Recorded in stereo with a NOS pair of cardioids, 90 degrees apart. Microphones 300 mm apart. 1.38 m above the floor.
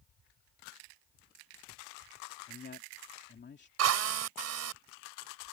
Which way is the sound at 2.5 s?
35° left.